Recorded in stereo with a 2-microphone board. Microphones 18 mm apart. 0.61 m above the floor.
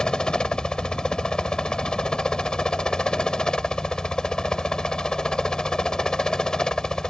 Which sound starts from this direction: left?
A helicopter, at 0.0 s.